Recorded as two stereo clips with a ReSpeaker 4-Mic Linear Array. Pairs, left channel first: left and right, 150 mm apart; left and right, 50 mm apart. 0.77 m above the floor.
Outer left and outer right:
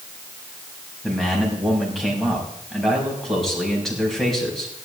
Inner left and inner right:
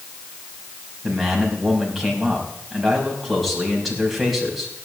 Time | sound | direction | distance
1.0 | a man speaking | centre (ahead or behind) | 5.5 m